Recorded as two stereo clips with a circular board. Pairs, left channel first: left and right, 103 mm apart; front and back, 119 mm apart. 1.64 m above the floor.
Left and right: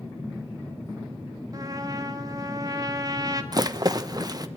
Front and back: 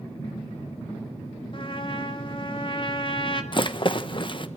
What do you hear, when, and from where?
1.5 s a trumpet: 40° right, 2 m
3.5 s a rattle: 40° right, 1.2 m